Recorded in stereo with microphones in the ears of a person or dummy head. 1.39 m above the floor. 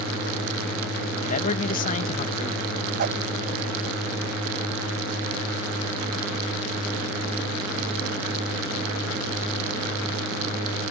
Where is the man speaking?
40° left (ahead or behind).